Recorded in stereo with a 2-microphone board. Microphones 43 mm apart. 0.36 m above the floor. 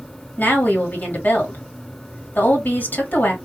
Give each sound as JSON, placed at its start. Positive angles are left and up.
{"t": 0.4, "sound": "a woman speaking", "side_deg": 50, "distance_m": 1.7}